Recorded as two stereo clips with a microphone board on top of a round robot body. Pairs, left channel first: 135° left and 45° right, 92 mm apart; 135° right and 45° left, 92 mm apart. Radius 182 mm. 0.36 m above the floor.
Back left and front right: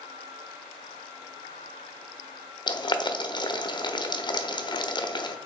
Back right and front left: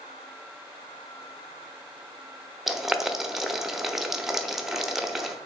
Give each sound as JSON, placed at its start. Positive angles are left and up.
{"t": 2.7, "sound": "boiling", "azimuth_deg": 130, "distance_m": 1.0}